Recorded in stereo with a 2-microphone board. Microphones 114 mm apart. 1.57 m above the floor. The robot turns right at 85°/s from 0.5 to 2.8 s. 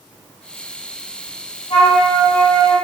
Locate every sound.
1.7 s a flute: 85° left, 1.0 m; by 2.8 s 175° left, 1.0 m